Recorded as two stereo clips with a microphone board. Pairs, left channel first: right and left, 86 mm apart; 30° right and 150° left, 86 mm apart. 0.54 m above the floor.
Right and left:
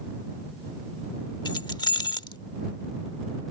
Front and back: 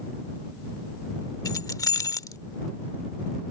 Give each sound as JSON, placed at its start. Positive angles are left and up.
{"t": 1.4, "sound": "keys jangling", "azimuth_deg": -70}